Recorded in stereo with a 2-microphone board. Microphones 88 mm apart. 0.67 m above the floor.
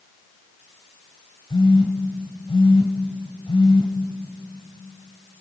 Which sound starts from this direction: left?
A phone buzzing, at 1.5 s.